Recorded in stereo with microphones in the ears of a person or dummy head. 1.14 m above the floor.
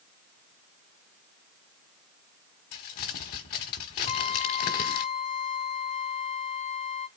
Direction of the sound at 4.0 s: 35° left (ahead or behind).